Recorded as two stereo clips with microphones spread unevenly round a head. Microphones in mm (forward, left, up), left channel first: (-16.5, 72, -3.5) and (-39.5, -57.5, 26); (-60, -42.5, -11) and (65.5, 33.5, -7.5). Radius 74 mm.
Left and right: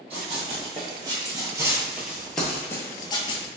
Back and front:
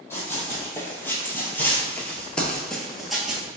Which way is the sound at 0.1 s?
75° right.